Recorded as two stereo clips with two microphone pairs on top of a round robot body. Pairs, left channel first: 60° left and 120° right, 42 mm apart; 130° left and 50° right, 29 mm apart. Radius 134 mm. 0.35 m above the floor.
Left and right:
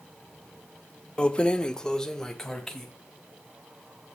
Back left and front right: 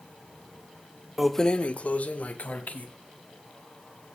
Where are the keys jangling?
30° left, 0.6 m; by 2.9 s 140° left, 2.5 m.